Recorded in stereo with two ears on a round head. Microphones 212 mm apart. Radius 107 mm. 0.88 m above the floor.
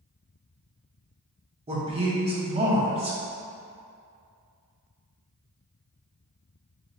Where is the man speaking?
25° right (ahead or behind), 0.7 m.